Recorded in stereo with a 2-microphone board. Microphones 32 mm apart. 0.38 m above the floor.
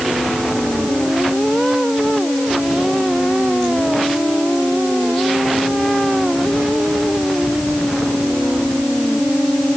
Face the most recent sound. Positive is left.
No sound to turn to.